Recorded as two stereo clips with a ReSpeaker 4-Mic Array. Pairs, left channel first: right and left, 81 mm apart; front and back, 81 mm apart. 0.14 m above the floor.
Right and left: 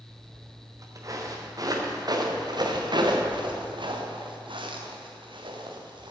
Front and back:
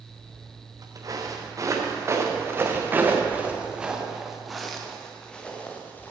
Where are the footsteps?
140° left, 4 m; by 6.1 s 70° left, 3 m.